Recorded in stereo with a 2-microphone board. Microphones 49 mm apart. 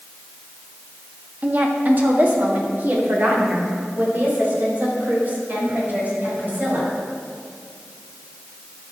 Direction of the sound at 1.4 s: 35° right (ahead or behind).